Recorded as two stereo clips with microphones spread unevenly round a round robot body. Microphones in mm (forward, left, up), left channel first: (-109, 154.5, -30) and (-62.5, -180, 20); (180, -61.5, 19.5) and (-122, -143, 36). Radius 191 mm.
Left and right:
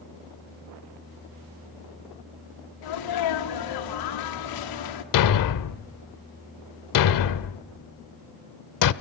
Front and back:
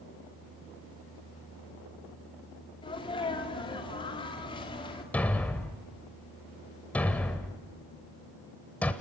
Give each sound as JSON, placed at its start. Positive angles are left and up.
{"t": 2.8, "sound": "a sneeze", "azimuth_deg": 90, "distance_m": 2.0}
{"t": 5.1, "sound": "a thud", "azimuth_deg": 105, "distance_m": 0.7}